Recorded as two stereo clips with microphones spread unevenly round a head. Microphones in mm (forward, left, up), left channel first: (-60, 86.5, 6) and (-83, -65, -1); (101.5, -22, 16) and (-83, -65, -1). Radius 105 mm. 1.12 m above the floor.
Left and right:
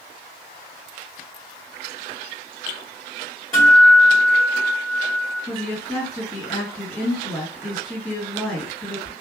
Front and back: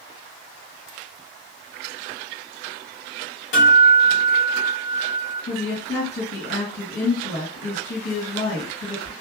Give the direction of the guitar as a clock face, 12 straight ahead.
12 o'clock.